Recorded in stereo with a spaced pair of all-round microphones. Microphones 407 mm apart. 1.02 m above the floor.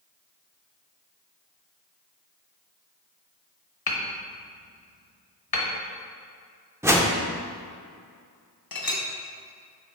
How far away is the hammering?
About 1.0 m.